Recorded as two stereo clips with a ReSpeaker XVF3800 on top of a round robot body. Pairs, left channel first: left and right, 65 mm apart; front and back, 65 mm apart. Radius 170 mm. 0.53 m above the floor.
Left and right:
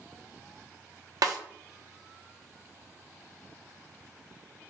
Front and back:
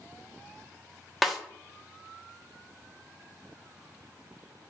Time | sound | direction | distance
1.2 | a snare drum | 90° right | 0.6 m